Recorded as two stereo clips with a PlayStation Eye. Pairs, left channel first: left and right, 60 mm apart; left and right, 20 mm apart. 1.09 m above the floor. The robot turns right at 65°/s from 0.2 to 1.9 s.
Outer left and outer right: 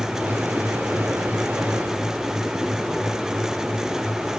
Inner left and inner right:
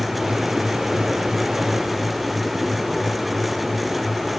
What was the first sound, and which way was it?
Only background noise.